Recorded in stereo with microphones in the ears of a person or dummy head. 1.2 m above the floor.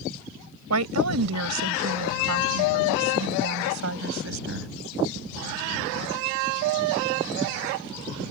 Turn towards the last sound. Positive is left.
turn(degrees=-65)  # may be behind; listen again after turning